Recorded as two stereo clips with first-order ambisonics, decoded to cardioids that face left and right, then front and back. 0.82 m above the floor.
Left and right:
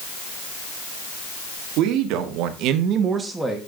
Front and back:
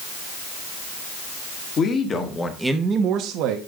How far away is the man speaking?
About 1.7 m.